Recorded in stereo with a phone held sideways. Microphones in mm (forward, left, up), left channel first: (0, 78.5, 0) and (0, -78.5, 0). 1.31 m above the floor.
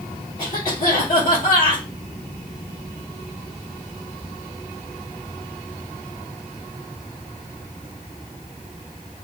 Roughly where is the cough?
Left.